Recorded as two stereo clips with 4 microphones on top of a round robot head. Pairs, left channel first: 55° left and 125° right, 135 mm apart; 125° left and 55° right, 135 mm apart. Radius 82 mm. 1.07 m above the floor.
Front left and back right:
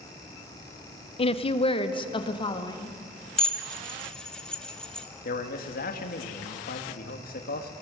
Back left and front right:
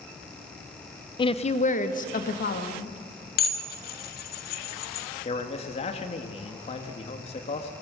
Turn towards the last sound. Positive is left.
turn(degrees=75)